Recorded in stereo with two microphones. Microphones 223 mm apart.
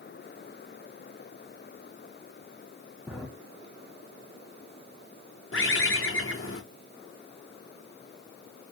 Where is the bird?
65° left (ahead or behind), 0.8 m.